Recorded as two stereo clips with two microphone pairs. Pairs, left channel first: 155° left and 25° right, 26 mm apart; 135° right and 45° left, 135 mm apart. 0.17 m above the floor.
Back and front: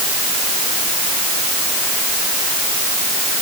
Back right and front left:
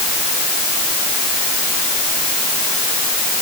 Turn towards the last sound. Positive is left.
No sound to turn to.